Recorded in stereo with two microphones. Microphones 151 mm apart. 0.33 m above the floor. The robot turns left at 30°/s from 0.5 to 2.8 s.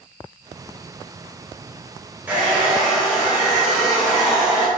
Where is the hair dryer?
10° right (ahead or behind), 1.1 m; by 4.7 s 5° right (ahead or behind), 1.1 m.